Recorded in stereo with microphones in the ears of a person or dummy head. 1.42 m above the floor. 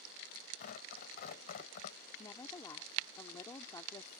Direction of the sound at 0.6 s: 55° left (ahead or behind).